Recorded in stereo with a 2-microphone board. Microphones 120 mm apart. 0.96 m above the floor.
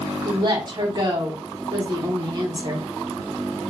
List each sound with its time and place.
0.2 s a woman speaking: 40° right (ahead or behind), 0.8 m